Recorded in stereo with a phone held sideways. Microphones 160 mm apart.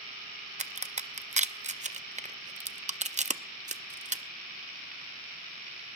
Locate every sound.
0.6 s a crack: 45° right (ahead or behind), 0.5 m